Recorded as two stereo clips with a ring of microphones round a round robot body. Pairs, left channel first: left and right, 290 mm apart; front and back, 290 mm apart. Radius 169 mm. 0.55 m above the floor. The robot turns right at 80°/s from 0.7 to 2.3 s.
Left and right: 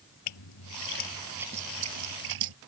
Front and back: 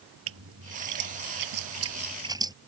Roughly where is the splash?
Behind left.